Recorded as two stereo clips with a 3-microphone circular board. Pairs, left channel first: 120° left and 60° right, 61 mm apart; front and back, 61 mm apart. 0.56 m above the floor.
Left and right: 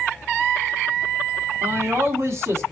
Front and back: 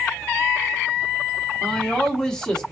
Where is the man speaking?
75° right, 1.1 m.